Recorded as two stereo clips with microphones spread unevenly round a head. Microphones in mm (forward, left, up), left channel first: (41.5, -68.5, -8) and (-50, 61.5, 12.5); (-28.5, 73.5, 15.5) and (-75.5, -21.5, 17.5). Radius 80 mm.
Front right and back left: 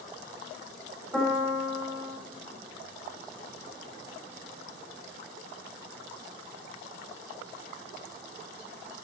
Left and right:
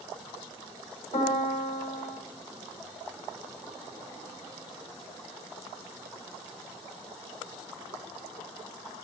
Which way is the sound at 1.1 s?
40° left.